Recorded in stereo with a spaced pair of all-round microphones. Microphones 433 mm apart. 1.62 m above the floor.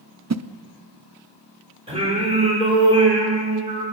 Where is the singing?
15° right (ahead or behind), 7 m.